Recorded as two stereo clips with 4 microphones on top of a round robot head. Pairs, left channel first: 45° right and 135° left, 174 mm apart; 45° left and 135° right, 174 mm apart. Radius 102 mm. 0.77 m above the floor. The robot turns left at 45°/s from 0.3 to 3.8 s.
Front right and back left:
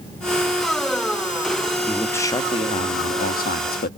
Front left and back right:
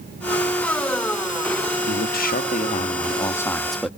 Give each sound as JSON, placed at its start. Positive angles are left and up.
{"t": 1.9, "sound": "a man speaking", "azimuth_deg": 40, "distance_m": 1.3}